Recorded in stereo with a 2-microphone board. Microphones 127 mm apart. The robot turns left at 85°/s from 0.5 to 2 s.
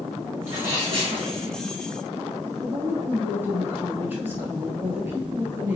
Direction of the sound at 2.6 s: 15° right (ahead or behind).